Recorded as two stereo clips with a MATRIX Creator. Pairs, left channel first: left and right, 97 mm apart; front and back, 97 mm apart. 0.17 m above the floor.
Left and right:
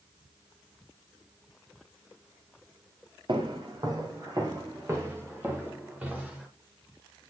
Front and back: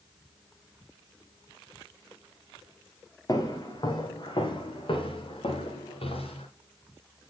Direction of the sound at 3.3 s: 55° right.